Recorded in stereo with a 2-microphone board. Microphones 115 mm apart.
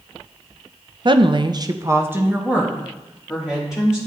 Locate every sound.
1.1 s a woman speaking: 40° right (ahead or behind), 0.5 m; by 4.0 s 5° right (ahead or behind), 2.5 m